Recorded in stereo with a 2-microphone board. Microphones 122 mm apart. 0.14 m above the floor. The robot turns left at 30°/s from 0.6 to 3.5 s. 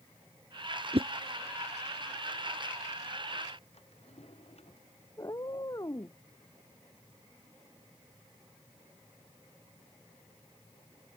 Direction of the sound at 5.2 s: 30° left (ahead or behind).